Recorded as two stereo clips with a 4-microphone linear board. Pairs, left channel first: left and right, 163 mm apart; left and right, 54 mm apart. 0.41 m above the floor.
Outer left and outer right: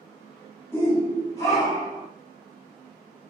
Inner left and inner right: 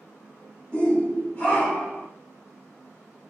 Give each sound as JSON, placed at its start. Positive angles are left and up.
{"t": 0.7, "sound": "a shout", "side_deg": 15, "distance_m": 1.3}